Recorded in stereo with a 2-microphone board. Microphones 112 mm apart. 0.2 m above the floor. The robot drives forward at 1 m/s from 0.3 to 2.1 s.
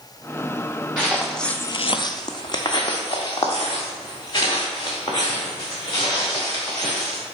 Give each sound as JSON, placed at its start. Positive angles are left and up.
{"t": 1.0, "sound": "footsteps", "side_deg": -5, "distance_m": 1.2}